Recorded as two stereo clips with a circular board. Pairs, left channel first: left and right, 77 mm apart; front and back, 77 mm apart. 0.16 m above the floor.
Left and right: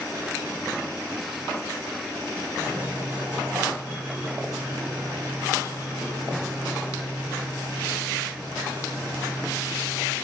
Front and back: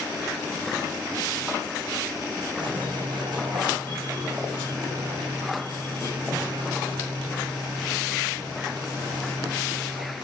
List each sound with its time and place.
2.6 s a squeak: 160° right, 4 m